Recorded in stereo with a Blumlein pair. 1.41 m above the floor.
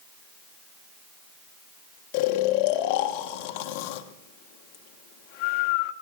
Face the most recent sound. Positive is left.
turn(degrees=45)